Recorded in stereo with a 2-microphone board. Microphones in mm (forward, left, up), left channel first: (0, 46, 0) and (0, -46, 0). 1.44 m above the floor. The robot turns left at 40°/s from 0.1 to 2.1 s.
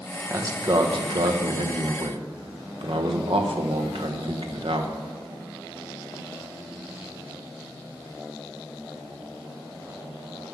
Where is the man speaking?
35° right, 1.2 m; by 5.0 s 105° right, 1.2 m.